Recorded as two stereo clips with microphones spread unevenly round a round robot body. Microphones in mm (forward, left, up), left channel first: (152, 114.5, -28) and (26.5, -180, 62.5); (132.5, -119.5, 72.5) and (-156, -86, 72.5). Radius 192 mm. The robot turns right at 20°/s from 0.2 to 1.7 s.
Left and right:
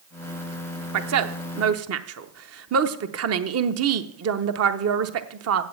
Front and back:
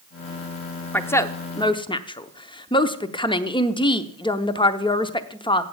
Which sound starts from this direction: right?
A woman speaking, at 0.9 s.